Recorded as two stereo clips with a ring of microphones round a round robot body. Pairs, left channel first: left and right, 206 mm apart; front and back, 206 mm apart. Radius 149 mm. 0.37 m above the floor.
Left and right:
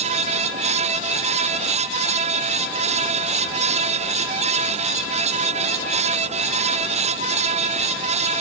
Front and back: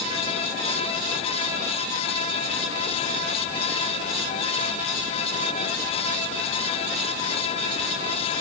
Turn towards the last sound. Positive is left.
No sound to turn to.